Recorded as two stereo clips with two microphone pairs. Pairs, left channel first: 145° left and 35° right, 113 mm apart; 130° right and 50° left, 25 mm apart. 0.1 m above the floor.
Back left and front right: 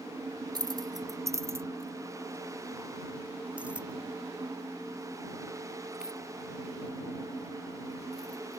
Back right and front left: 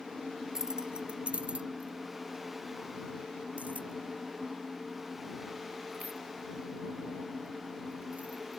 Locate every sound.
0.6 s keys jangling: 10° right; by 8.6 s 50° left